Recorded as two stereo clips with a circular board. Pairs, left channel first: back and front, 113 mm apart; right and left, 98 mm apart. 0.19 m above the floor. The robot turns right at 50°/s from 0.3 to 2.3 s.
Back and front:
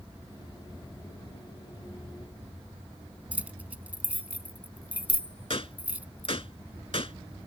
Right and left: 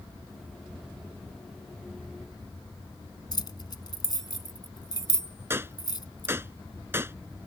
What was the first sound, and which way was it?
Keys jangling, 70° right.